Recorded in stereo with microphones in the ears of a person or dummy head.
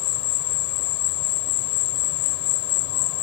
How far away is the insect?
About 3 m.